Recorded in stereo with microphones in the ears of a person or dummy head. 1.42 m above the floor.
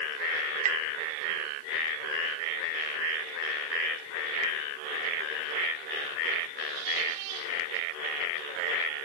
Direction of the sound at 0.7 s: 40° right (ahead or behind).